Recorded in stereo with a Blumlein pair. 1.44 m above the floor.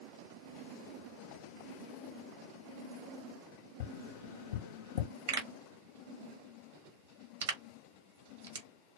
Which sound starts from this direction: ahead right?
A pop, at 5.3 s.